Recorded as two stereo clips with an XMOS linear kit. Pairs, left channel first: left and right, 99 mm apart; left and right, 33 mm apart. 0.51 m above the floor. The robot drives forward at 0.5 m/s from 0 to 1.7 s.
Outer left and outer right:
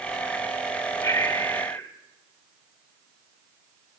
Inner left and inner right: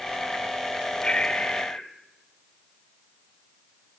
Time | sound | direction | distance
1.0 | breathing | 30° left (ahead or behind) | 1.8 m